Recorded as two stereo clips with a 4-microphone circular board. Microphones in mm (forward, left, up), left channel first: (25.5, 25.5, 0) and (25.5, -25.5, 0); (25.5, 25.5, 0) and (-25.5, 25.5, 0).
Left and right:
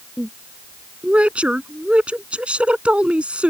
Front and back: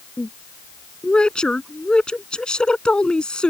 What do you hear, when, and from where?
0.2 s a woman speaking: 55° right